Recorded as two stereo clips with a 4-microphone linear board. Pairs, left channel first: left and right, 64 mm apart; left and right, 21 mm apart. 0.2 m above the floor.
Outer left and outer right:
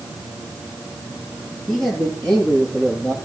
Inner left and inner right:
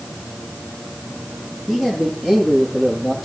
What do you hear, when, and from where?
1.7 s a man speaking: 10° left (ahead or behind), 6 m; by 3.1 s 20° left (ahead or behind), 7.5 m